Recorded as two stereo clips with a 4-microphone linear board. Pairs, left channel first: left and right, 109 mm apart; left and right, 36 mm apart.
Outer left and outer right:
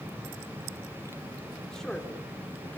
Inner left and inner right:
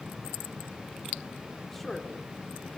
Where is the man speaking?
5° left (ahead or behind), 4 m; by 2.8 s 15° left (ahead or behind), 4 m.